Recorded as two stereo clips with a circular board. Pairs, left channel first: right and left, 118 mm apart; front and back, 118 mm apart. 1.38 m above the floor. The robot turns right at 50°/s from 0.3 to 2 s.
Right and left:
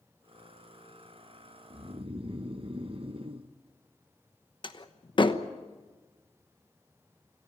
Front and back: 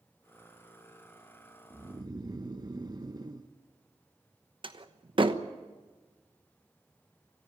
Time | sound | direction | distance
1.7 | snoring | 110° left | 0.9 m
4.6 | a door slam | 135° right | 1.0 m